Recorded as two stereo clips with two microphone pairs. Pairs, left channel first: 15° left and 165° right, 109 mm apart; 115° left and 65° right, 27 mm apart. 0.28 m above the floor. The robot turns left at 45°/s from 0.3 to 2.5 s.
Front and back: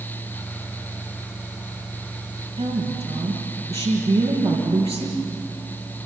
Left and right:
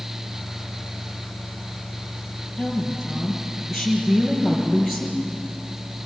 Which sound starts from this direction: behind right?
A woman speaking, at 2.6 s.